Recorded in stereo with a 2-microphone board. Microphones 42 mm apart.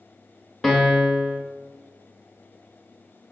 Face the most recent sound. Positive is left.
turn(degrees=5)  # may be behind; listen again after turning